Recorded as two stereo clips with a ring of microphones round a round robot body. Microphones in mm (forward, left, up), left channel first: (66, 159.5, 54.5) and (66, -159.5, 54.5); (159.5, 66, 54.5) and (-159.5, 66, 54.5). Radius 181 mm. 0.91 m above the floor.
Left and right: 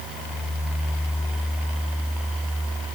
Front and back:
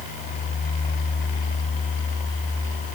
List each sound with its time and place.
Only background noise.